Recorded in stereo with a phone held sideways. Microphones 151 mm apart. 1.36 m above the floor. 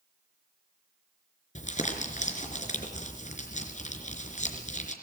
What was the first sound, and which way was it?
Crumpling, 55° left (ahead or behind).